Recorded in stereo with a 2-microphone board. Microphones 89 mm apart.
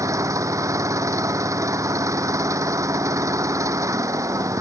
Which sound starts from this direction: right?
An engine running, at 0.0 s.